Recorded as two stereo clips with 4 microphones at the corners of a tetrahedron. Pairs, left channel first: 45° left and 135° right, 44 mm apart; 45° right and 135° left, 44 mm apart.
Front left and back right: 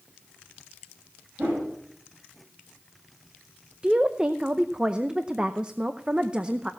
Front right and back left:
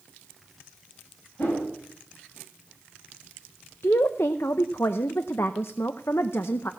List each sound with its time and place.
1.4 s a whoosh: 85° right, 7.5 m
3.8 s a woman speaking: 70° right, 0.6 m